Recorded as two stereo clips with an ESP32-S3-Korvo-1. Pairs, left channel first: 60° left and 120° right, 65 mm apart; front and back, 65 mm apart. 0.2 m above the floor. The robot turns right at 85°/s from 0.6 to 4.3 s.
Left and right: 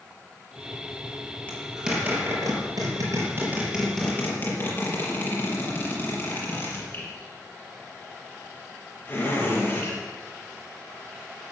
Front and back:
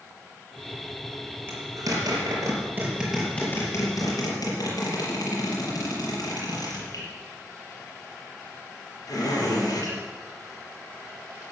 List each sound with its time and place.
1.5 s a zipper: 130° left, 5.5 m; by 10.0 s 10° left, 5.5 m